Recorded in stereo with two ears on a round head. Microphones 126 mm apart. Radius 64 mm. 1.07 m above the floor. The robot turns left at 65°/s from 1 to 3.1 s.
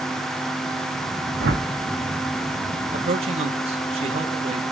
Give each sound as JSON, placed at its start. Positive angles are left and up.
{"t": 1.4, "sound": "a whoosh", "side_deg": -85, "distance_m": 1.4}
{"t": 2.9, "sound": "a man speaking", "side_deg": -55, "distance_m": 1.5}